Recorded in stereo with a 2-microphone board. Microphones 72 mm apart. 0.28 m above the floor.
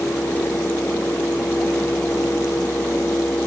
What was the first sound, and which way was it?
Only background noise.